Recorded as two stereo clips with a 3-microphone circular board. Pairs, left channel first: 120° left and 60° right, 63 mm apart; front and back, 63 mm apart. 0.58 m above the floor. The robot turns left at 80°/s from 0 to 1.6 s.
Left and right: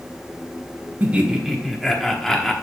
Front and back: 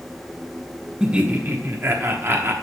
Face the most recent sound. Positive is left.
turn(degrees=-155)